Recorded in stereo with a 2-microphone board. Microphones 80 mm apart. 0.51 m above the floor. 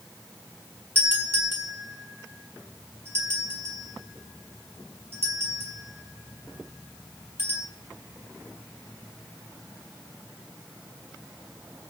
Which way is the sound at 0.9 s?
30° right (ahead or behind).